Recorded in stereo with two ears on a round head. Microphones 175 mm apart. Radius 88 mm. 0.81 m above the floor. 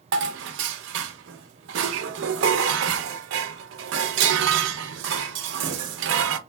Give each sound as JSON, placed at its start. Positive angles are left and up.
{"t": 0.1, "sound": "dishes clattering", "side_deg": -65, "distance_m": 0.5}